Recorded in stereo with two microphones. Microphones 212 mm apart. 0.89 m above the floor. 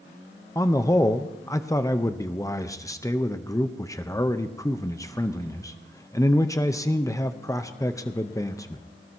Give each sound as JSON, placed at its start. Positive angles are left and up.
{"t": 0.6, "sound": "a man speaking", "side_deg": 15, "distance_m": 0.6}